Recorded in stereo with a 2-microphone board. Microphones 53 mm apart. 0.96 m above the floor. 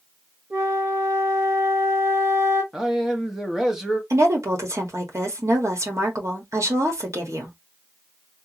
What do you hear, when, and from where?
0.5 s a flute: 65° right (ahead or behind), 1.7 m
2.7 s a man speaking: 10° right (ahead or behind), 1.3 m
4.1 s a woman speaking: 70° right (ahead or behind), 1.6 m